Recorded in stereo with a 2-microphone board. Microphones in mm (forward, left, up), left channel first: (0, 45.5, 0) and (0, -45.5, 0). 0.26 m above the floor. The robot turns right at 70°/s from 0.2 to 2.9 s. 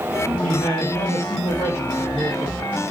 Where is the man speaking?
110° left, 2.5 m; by 2.8 s 80° right, 2.5 m.